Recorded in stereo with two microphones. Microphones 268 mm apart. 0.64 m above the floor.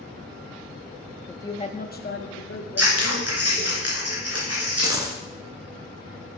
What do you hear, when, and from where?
1.3 s a woman speaking: 5° left (ahead or behind), 0.6 m; by 3.8 s 55° left (ahead or behind), 1.5 m
2.8 s scissors: 65° right (ahead or behind), 3 m
4.8 s a dropped coin: 15° right (ahead or behind), 1.1 m